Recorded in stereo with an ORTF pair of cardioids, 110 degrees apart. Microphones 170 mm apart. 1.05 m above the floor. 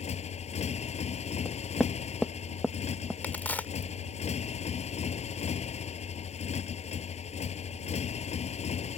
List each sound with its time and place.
0.0 s a motorcycle: 40° left
1.4 s knocking: 5° left
3.2 s a crack: 10° left